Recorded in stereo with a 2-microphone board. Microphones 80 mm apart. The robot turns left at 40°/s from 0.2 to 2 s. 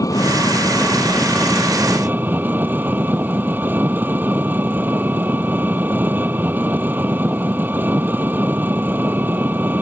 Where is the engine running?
45° left; by 9.8 s 25° right.